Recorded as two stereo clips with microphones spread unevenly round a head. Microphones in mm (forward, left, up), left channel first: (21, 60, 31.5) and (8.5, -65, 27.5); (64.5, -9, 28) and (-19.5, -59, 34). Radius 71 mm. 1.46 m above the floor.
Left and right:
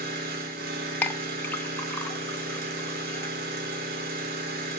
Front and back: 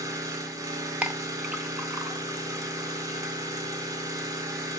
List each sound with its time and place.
0.0 s an engine running: 95° right, 3.5 m
1.0 s a clink: 145° left, 0.8 m